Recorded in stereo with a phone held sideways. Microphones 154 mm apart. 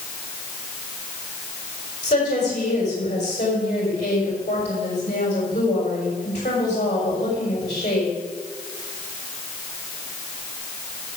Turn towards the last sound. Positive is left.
turn(degrees=50)  # may be behind; listen again after turning